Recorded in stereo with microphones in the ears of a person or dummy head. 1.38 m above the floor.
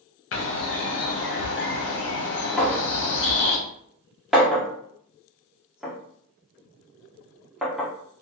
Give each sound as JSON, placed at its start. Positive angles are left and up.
{"t": 0.3, "sound": "a bird", "side_deg": 55, "distance_m": 0.6}
{"t": 2.6, "sound": "a clink", "side_deg": -5, "distance_m": 0.6}